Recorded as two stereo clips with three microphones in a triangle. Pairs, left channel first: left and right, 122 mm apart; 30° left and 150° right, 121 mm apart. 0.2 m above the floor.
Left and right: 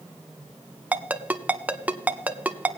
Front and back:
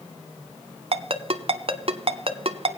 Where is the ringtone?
165° right, 0.6 m.